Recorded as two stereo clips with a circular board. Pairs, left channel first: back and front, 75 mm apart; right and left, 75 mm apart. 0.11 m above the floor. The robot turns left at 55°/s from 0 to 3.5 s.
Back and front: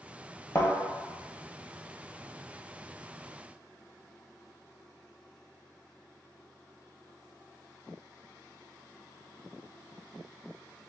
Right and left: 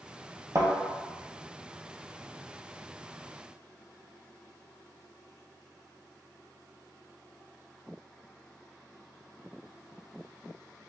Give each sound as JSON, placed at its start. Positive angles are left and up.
{"t": 0.6, "sound": "a thud", "azimuth_deg": 125, "distance_m": 1.1}